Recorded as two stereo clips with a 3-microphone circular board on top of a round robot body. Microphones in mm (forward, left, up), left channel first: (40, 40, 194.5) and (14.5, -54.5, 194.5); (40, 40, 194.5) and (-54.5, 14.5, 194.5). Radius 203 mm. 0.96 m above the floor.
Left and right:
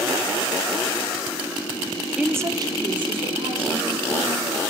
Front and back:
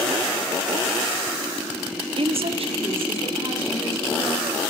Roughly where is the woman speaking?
Behind.